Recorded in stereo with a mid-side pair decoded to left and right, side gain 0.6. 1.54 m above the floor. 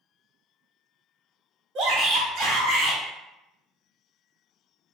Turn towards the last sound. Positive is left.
turn(degrees=-70)